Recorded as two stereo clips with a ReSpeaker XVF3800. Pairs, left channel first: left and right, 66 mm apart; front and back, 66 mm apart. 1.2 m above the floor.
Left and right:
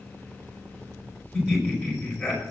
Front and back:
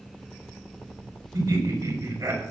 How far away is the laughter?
About 5.5 m.